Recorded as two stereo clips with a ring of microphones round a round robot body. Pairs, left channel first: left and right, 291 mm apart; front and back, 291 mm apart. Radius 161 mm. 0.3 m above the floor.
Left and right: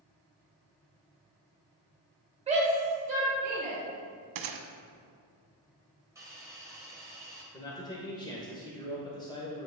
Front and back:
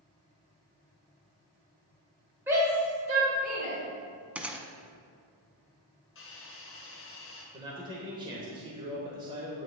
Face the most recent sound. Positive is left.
turn(degrees=135)